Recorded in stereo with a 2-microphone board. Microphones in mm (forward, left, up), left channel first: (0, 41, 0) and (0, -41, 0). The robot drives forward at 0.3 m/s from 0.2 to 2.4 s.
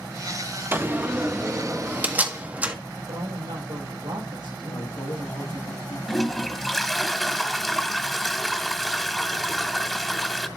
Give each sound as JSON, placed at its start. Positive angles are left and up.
{"t": 0.7, "sound": "a door slam", "side_deg": -30, "distance_m": 1.0}
{"t": 3.1, "sound": "a woman speaking", "side_deg": -75, "distance_m": 6.0}
{"t": 4.7, "sound": "a man speaking", "side_deg": 70, "distance_m": 2.5}
{"t": 6.1, "sound": "a toilet flushing", "side_deg": 5, "distance_m": 1.1}